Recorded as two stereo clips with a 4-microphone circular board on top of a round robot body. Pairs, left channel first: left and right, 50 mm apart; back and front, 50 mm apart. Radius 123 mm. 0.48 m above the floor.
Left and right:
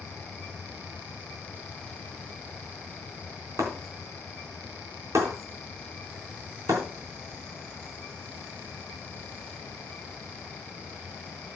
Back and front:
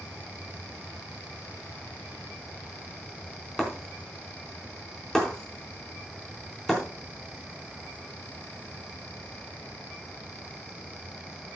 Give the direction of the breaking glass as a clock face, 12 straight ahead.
3 o'clock.